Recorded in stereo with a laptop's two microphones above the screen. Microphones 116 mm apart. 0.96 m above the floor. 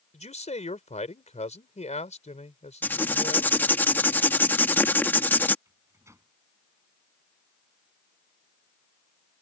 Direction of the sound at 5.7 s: 25° right (ahead or behind).